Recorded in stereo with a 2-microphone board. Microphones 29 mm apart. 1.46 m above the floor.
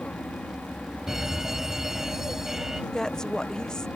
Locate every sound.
0.0 s an aircraft: 65° left (ahead or behind)
1.1 s a fire alarm: 20° right (ahead or behind)
2.9 s a woman speaking: 15° left (ahead or behind)